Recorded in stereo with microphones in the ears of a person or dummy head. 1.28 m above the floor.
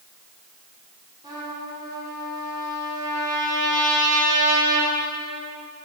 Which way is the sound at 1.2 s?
25° right (ahead or behind).